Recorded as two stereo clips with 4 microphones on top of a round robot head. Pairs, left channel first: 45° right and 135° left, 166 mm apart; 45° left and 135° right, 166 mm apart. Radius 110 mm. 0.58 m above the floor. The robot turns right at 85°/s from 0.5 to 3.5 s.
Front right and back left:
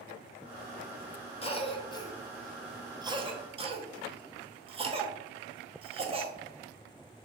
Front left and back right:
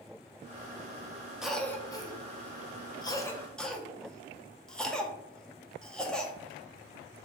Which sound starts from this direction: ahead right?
A cough, at 1.4 s.